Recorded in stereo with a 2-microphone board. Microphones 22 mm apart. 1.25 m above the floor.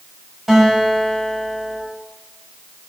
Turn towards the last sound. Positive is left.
turn(degrees=-15)  # may be behind; listen again after turning